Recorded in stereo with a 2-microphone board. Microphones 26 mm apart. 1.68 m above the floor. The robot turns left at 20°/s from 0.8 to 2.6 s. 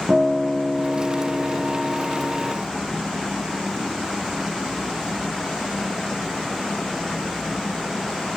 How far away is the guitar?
About 2 m.